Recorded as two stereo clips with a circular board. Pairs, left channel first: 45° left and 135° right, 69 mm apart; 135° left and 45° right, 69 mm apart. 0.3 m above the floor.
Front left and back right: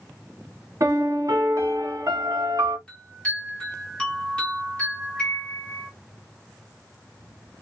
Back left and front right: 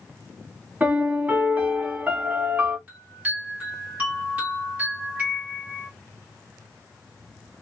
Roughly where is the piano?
Right.